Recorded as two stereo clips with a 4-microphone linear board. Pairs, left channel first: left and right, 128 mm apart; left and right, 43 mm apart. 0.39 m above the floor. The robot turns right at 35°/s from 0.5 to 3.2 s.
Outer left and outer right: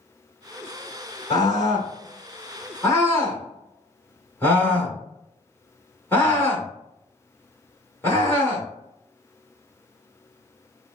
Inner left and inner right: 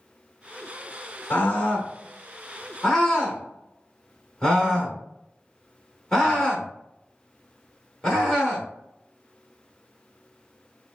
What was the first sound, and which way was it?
A scream, 30° left (ahead or behind).